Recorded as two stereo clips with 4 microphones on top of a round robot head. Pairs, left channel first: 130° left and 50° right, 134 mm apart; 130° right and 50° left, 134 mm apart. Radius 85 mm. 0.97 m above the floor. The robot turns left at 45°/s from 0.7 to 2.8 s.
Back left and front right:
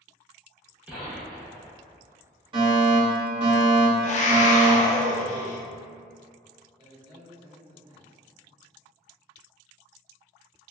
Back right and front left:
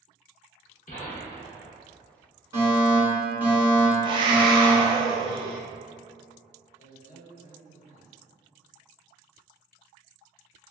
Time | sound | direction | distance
0.9 | a gunshot | 125° right | 0.9 m
2.5 | a fire alarm | 15° right | 1.8 m
4.0 | a scream | 100° left | 0.7 m
6.8 | a man speaking | 100° right | 1.1 m